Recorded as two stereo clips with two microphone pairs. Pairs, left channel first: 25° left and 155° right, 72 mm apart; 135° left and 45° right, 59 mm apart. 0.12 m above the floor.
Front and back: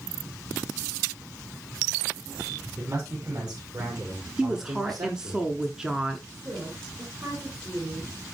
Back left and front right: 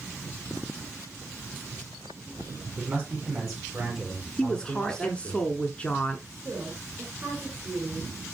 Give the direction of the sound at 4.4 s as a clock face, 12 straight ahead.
7 o'clock.